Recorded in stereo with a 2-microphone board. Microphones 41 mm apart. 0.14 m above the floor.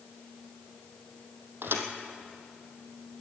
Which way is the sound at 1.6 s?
70° right (ahead or behind).